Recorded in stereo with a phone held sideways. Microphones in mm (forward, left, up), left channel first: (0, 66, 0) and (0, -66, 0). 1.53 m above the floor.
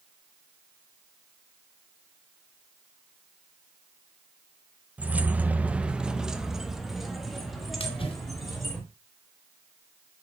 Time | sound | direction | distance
5.0 | keys jangling | 10° right (ahead or behind) | 0.8 m
7.8 | a splash | 45° left (ahead or behind) | 2.5 m